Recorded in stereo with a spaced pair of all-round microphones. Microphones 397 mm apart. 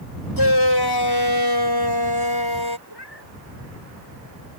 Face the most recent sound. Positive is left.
turn(degrees=85)